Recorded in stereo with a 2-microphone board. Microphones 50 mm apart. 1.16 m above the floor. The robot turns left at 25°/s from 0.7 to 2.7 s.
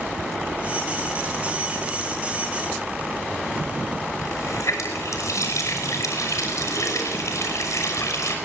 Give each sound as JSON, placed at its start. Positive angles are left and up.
{"t": 4.2, "sound": "a running tap", "side_deg": 80, "distance_m": 6.0}